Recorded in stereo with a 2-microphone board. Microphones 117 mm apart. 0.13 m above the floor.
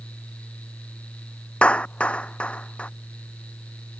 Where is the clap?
10° left (ahead or behind).